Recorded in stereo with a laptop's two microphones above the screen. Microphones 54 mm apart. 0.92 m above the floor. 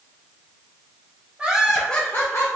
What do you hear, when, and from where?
1.4 s laughter: 20° right (ahead or behind), 0.8 m; by 2.5 s 60° left (ahead or behind), 0.6 m